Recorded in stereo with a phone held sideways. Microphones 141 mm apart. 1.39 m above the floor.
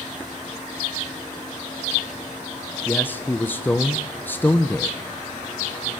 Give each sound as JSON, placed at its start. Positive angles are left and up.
{"t": 2.9, "sound": "a man speaking", "side_deg": 15, "distance_m": 0.9}